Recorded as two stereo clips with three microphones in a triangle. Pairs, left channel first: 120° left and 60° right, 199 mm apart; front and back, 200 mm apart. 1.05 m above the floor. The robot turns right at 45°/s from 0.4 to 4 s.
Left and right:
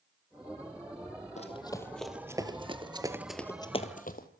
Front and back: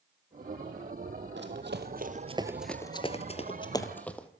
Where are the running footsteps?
170° left, 2.5 m; by 4.3 s 85° left, 2 m.